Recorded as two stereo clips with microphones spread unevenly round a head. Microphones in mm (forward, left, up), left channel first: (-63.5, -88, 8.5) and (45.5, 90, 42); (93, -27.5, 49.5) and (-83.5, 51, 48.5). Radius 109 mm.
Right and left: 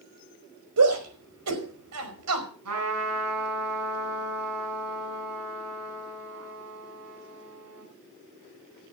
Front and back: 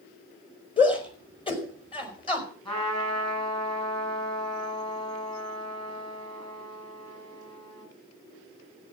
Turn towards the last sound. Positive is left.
turn(degrees=45)